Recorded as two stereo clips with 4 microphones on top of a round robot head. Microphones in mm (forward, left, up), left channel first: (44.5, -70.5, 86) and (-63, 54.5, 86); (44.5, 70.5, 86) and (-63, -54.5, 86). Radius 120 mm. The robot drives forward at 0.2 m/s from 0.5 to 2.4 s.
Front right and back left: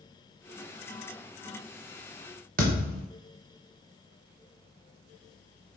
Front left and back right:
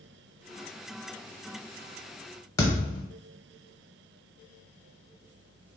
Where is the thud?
110° left, 0.5 m.